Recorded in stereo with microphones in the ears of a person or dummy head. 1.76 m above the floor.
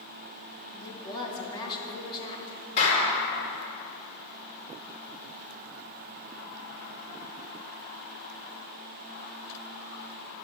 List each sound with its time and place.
0.7 s a woman speaking: 30° left (ahead or behind), 2.5 m
2.8 s a clap: 50° left (ahead or behind), 4 m